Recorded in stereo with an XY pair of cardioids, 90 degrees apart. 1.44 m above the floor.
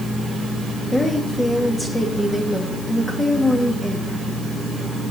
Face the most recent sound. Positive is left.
turn(degrees=15)